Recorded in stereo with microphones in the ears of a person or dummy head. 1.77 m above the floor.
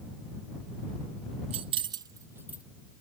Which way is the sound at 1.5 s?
35° right (ahead or behind).